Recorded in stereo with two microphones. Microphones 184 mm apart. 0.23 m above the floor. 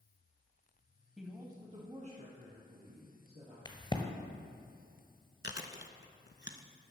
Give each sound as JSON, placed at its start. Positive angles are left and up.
{"t": 1.2, "sound": "a woman speaking", "side_deg": 0, "distance_m": 0.9}
{"t": 3.6, "sound": "a crack", "side_deg": 25, "distance_m": 1.1}
{"t": 5.4, "sound": "chewing", "side_deg": 75, "distance_m": 0.7}